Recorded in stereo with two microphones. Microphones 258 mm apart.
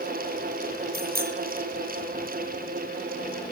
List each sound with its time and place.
0.9 s a bicycle bell: 40° right (ahead or behind), 9 m